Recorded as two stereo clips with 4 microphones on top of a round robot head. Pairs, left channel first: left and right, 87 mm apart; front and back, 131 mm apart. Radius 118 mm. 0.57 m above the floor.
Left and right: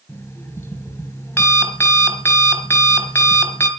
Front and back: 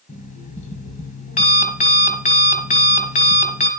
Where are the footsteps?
I don't hear footsteps.